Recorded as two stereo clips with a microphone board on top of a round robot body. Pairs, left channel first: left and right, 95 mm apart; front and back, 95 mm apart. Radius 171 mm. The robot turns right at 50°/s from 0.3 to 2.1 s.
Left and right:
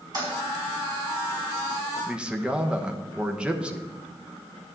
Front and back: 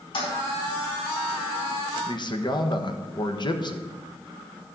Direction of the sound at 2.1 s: 15° right.